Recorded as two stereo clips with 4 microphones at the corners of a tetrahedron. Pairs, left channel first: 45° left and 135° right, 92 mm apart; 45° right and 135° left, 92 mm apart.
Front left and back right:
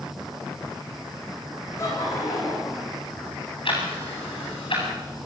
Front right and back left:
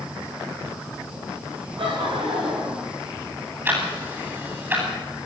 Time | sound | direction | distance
1.8 | laughter | 105° left | 10 m
3.6 | ticking | 65° left | 9.5 m